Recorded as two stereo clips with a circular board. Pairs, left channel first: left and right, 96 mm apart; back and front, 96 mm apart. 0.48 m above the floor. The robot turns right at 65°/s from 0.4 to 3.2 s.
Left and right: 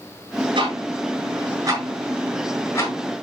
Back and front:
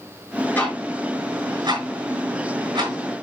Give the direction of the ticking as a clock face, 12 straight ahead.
4 o'clock.